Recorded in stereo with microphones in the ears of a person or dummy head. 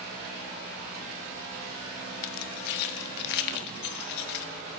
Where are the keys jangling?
60° left (ahead or behind), 1.2 m.